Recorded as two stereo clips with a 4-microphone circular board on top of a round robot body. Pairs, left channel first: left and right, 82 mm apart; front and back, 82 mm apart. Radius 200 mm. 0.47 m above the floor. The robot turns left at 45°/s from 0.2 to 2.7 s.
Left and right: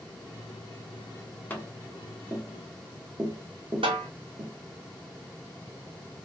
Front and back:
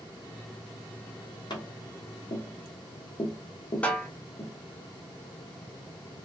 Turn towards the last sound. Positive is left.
turn(degrees=-75)